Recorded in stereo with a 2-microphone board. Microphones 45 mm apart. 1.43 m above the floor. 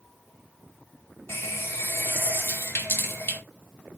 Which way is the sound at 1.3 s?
55° left (ahead or behind).